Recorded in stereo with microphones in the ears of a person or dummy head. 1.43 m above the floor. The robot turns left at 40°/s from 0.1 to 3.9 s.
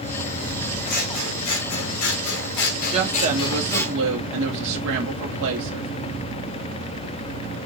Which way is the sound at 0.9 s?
130° left.